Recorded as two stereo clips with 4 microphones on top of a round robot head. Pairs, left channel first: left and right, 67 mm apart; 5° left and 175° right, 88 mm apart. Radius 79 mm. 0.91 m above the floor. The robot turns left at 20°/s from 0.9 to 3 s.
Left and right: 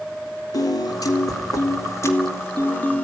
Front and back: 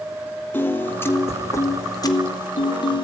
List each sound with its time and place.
0.5 s a piano: 70° left, 3 m; by 3.0 s 25° left, 3 m